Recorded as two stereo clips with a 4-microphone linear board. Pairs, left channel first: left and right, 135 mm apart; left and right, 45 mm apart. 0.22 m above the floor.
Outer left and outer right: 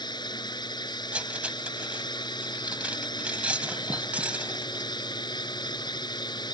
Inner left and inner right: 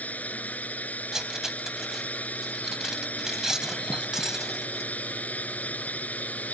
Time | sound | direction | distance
0.0 | a drone | 35° left (ahead or behind) | ?
1.1 | cutlery clinking | 10° right (ahead or behind) | ?